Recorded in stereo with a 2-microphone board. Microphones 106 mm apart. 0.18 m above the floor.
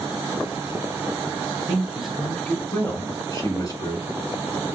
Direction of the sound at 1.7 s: 15° right (ahead or behind).